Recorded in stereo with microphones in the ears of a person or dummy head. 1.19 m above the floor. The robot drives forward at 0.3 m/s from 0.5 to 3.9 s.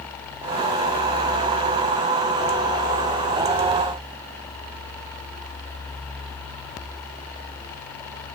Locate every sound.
Only background noise.